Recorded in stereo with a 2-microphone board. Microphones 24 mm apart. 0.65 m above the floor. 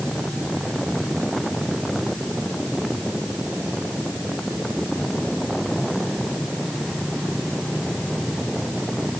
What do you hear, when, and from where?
Only background noise.